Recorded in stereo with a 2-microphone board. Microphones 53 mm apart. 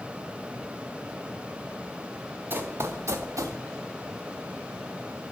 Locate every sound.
2.5 s running footsteps: 40° right (ahead or behind), 0.9 m; by 3.6 s 80° right, 0.9 m